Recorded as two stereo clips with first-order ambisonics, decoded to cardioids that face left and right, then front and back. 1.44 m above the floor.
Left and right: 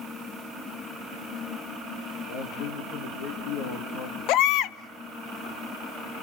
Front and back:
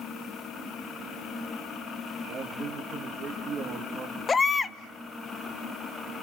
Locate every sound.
2.3 s a man speaking: 115° left, 2 m
4.3 s a baby crying: 70° left, 0.6 m